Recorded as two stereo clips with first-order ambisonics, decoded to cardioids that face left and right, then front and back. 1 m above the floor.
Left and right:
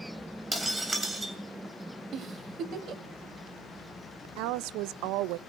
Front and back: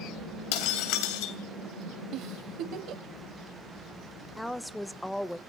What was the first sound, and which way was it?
Breaking glass, 5° right.